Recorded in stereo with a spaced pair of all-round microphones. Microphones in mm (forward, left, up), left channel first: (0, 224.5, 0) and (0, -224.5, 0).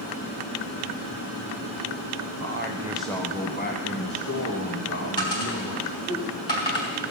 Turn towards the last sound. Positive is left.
turn(degrees=65)  # may be behind; listen again after turning